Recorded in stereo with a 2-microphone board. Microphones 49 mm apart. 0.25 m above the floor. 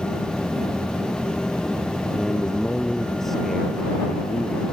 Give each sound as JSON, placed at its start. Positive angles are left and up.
{"t": 2.1, "sound": "a man speaking", "side_deg": 5}